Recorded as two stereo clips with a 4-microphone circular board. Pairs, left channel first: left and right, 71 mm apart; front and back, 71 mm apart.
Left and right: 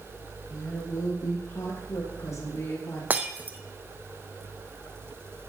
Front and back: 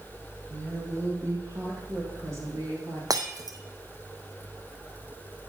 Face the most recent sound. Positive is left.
turn(degrees=-155)